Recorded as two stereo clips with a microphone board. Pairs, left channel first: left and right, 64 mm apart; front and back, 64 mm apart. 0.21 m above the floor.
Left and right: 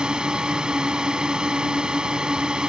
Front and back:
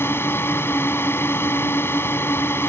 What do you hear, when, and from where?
0.0 s a drone: 20° right